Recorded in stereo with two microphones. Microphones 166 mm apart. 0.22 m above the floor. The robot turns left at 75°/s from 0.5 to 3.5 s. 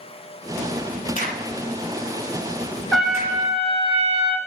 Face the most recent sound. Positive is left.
turn(degrees=-40)